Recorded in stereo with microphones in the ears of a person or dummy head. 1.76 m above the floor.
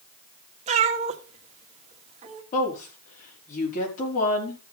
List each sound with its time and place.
0.7 s a cat meowing: 35° right (ahead or behind), 1.5 m
2.5 s a woman speaking: 45° left (ahead or behind), 4.5 m